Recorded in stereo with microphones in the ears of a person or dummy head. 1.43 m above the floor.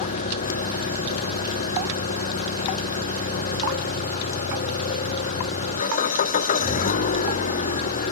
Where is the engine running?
40° left (ahead or behind).